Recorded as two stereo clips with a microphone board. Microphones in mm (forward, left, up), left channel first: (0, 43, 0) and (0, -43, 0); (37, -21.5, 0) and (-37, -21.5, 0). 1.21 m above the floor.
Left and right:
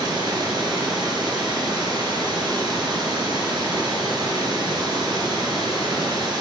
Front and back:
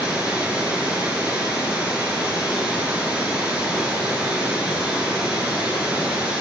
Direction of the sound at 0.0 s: 105° right.